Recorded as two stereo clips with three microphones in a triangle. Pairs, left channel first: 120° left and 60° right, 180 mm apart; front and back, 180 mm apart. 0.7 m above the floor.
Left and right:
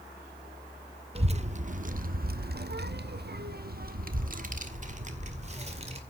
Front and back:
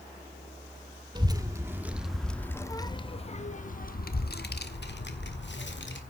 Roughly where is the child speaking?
Behind right.